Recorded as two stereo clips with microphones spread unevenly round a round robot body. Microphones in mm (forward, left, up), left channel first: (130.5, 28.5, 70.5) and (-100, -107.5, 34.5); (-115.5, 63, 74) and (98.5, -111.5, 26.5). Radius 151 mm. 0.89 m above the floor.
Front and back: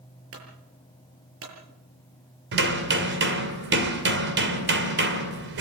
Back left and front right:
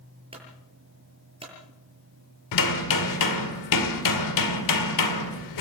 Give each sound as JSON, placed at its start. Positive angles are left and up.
{"t": 0.3, "sound": "a clunk", "azimuth_deg": -110, "distance_m": 7.5}
{"t": 2.5, "sound": "hammering", "azimuth_deg": 155, "distance_m": 2.0}